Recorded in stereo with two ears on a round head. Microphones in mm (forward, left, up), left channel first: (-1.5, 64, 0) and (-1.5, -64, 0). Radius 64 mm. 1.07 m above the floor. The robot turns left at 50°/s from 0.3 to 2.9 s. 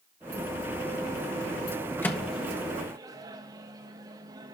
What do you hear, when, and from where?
2.0 s a microwave: 15° left (ahead or behind), 1.2 m; by 4.5 s 25° right (ahead or behind), 1.2 m